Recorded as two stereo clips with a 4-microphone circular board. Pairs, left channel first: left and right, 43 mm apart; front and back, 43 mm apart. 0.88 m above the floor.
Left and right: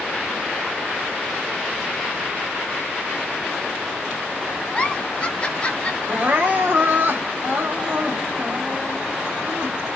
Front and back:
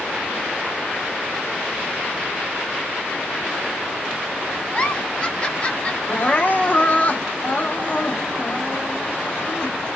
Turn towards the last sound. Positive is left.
turn(degrees=-50)